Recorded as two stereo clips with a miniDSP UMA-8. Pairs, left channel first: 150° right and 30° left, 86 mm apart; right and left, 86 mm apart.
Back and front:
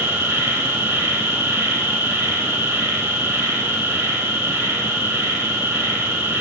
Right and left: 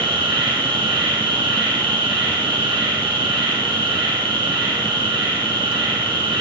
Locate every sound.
0.0 s an insect: 90° left, 7 m